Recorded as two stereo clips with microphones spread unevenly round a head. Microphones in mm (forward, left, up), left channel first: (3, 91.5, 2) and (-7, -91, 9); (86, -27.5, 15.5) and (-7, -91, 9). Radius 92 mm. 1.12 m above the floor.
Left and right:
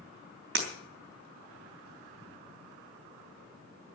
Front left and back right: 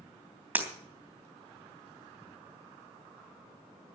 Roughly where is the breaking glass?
Right.